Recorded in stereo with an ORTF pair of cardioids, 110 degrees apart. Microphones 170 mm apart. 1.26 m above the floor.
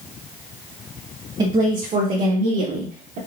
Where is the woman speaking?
30° right, 1.6 m; by 3.2 s 80° right, 2 m.